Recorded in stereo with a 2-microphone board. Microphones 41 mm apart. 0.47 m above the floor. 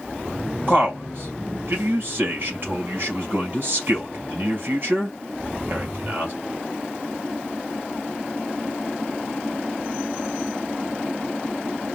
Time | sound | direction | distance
0.7 | a man speaking | 50° right (ahead or behind) | 2.5 m